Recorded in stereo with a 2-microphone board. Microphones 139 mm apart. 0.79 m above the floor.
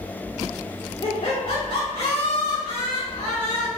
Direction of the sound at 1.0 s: 60° left (ahead or behind).